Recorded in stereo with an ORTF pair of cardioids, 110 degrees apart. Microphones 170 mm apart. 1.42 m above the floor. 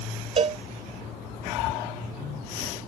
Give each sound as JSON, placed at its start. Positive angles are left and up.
{"t": 0.4, "sound": "a cowbell", "azimuth_deg": -40}